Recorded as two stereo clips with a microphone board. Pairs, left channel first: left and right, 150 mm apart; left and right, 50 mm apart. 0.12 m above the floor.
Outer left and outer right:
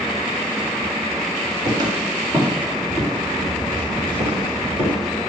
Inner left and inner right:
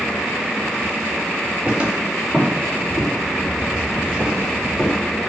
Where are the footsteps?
25° right (ahead or behind), 3 m; by 5.0 s 30° right (ahead or behind), 5 m.